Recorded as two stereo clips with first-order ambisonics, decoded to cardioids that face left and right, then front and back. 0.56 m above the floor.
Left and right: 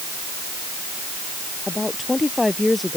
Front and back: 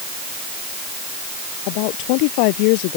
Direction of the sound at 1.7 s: 10° left.